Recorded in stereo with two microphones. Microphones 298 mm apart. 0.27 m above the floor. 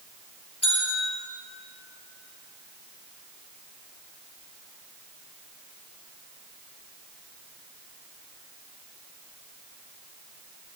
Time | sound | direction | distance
0.6 | a bell | 55° left (ahead or behind) | 4 m